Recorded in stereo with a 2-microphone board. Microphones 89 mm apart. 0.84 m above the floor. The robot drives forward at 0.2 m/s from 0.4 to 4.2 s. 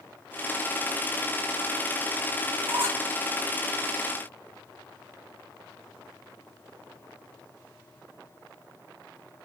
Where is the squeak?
25° right (ahead or behind), 1.7 m; by 3.0 s 30° right (ahead or behind), 1.6 m.